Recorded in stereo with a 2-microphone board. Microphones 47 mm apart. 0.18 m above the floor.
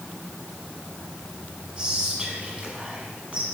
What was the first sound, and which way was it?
Whispering, 20° right (ahead or behind).